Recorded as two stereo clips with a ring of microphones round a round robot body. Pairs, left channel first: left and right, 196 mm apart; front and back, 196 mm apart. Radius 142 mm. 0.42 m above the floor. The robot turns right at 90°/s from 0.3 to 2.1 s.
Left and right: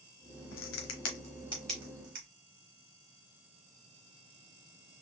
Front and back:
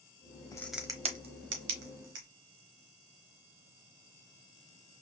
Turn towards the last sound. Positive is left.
turn(degrees=-145)